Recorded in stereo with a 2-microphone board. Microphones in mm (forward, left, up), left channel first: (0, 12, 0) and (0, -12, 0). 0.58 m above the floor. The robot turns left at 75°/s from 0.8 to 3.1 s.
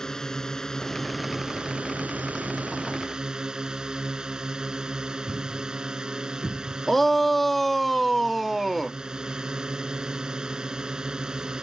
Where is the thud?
10° right (ahead or behind).